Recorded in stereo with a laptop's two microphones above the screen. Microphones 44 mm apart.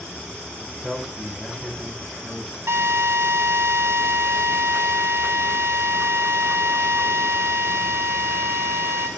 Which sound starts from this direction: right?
A drill, at 2.7 s.